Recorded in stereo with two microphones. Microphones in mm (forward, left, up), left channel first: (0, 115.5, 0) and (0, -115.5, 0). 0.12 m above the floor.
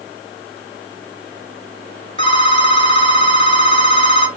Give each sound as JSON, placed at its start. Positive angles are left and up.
{"t": 2.2, "sound": "a phone ringing", "side_deg": 25, "distance_m": 1.0}